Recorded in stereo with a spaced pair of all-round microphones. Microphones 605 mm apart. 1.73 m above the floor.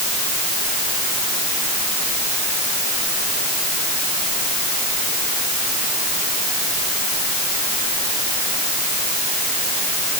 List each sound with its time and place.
Only background noise.